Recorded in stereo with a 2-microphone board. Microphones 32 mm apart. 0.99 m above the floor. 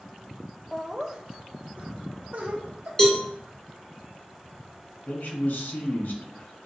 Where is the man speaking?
80° left, 1.3 m.